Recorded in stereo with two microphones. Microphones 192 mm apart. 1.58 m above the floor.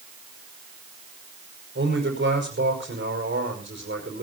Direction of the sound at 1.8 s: 85° right.